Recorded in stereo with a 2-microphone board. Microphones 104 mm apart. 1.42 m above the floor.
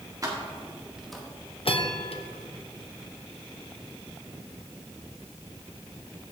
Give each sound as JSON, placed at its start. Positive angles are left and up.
{"t": 0.2, "sound": "keys jangling", "side_deg": -35, "distance_m": 1.8}
{"t": 1.6, "sound": "a bell", "side_deg": 65, "distance_m": 0.8}